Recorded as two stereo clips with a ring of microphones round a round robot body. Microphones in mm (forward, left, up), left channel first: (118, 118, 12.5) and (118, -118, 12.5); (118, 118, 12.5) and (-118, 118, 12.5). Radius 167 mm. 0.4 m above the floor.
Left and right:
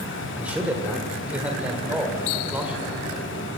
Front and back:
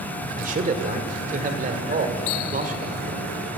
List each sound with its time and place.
0.4 s a man speaking: 170° right, 1.5 m